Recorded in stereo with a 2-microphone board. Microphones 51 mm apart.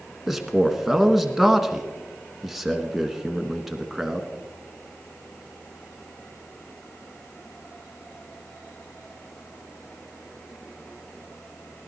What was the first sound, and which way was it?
A man speaking, 5° right (ahead or behind).